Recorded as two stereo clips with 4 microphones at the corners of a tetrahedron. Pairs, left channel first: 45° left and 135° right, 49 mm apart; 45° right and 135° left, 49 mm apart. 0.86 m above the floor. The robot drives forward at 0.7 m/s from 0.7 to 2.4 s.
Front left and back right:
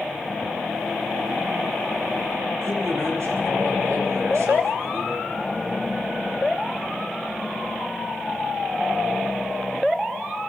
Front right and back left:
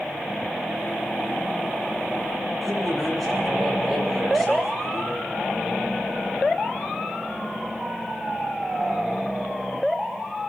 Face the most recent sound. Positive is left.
turn(degrees=-135)